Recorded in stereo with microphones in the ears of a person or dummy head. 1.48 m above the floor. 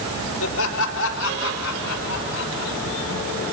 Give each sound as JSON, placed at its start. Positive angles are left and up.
{"t": 0.4, "sound": "laughter", "side_deg": 65, "distance_m": 5.0}